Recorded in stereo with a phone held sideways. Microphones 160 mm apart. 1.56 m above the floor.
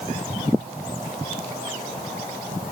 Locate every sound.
Only background noise.